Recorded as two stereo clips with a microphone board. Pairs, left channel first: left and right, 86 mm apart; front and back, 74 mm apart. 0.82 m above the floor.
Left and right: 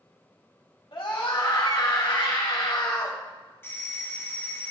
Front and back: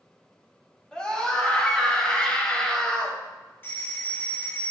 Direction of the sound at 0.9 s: 75° left.